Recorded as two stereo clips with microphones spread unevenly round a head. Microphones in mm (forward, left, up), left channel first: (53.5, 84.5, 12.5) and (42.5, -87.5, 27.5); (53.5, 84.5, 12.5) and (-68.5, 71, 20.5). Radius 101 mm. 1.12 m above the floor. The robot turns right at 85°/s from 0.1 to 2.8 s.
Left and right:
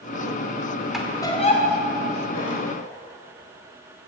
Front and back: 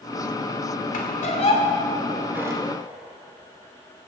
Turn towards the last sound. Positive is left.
turn(degrees=150)